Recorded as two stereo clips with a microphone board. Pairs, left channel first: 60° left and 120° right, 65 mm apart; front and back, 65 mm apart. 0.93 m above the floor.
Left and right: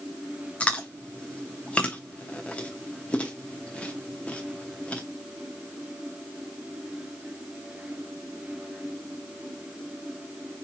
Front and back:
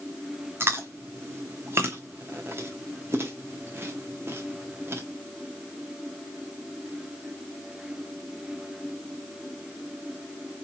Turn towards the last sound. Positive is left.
turn(degrees=130)